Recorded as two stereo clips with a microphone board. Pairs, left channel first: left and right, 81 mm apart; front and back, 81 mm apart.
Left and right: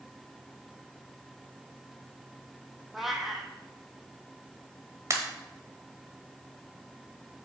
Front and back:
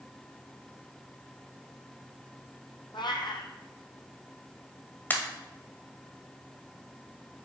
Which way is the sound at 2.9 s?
Straight ahead.